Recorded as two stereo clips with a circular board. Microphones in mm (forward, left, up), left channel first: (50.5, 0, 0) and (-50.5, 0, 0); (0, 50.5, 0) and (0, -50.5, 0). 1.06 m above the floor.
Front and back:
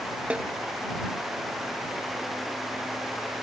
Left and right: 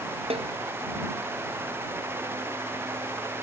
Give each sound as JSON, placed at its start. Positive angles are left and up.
{"t": 0.3, "sound": "a snare drum", "azimuth_deg": -105}